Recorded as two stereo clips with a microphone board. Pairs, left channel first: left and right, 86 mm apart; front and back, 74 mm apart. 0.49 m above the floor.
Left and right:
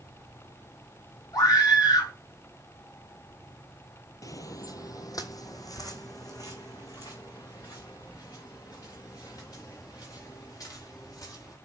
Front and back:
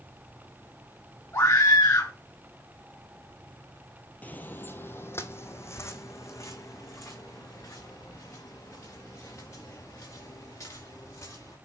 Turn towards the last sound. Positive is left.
turn(degrees=45)